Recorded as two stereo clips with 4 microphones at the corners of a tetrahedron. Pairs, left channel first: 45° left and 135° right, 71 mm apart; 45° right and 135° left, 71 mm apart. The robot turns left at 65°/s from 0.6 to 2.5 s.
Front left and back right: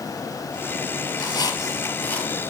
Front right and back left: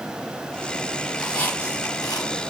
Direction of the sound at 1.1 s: 40° left.